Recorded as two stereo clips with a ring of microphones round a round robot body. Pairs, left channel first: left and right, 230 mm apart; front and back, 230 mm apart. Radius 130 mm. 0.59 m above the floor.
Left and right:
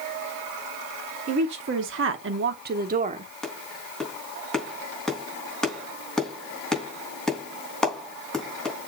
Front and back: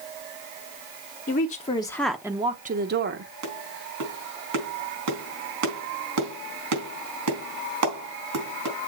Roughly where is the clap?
Behind.